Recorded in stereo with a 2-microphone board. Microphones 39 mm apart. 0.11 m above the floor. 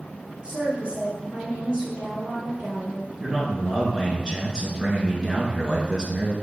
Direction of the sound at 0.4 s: 30° right (ahead or behind).